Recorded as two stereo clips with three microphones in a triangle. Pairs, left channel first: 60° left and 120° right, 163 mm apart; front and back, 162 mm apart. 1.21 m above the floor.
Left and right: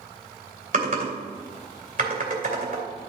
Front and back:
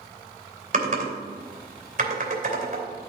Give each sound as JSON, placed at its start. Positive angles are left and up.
{"t": 0.7, "sound": "typing on a keyboard", "azimuth_deg": -150, "distance_m": 2.5}